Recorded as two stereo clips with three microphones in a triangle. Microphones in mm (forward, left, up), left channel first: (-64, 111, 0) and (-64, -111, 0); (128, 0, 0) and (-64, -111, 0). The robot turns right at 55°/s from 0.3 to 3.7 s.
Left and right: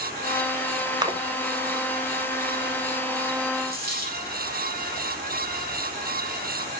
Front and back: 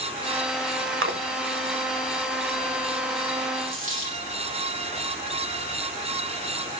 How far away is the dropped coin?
About 1.8 m.